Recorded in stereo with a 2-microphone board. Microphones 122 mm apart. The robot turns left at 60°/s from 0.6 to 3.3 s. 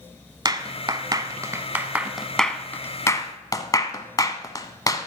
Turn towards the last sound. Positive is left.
turn(degrees=30)  # may be behind; listen again after turning